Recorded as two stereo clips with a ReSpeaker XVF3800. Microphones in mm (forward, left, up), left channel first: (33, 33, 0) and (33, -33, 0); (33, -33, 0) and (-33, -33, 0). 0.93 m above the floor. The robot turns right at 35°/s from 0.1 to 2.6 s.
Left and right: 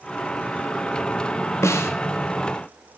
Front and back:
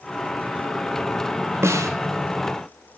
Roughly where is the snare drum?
Behind left.